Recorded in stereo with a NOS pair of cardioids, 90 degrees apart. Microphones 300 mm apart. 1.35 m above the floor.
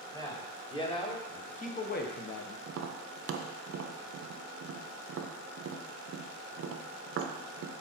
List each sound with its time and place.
0.1 s a man speaking: 10° left, 2 m; by 2.6 s 55° left, 0.8 m
2.7 s tapping: 50° right, 0.8 m